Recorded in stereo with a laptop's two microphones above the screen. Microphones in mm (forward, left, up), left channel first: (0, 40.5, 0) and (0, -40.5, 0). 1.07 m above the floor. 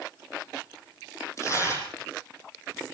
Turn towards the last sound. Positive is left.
turn(degrees=35)  # may be behind; listen again after turning